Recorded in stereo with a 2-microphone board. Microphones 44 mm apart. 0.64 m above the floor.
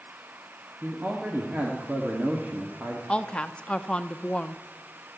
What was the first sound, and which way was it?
A man speaking, 40° right (ahead or behind).